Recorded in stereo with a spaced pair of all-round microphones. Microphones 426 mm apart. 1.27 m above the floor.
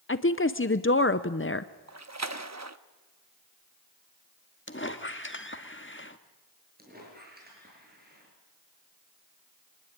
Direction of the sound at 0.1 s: 30° left (ahead or behind).